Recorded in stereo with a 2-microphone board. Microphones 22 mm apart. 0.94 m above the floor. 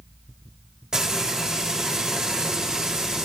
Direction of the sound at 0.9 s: 35° right (ahead or behind).